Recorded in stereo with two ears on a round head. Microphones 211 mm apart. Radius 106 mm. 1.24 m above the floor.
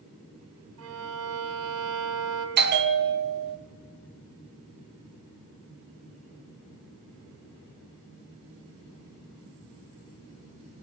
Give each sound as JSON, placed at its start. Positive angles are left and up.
{"t": 0.8, "sound": "a violin", "side_deg": -70, "distance_m": 4.5}
{"t": 2.6, "sound": "a bell", "side_deg": -45, "distance_m": 1.3}